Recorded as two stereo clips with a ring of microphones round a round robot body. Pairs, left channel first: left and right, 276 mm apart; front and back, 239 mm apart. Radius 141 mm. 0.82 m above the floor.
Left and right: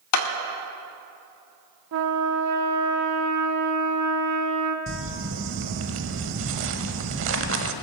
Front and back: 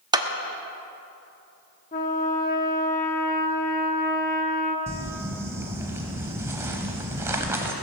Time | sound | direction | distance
0.1 | a clap | 105° left | 1.2 m
1.9 | a trumpet | 60° right | 0.9 m
4.9 | crumpling | 105° right | 0.8 m